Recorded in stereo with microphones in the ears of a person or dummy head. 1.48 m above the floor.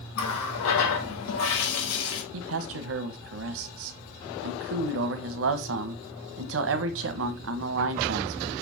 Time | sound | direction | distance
0.1 | a running tap | 75° left (ahead or behind) | 2 m
2.3 | a man speaking | 75° right (ahead or behind) | 1.2 m